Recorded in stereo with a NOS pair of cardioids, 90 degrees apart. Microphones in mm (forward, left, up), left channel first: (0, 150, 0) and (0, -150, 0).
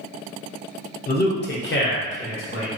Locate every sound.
1.1 s a man speaking: 30° left, 0.6 m; by 2.7 s 45° left, 1.4 m